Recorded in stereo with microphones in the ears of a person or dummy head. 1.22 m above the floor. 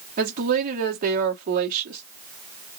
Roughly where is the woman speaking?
Right.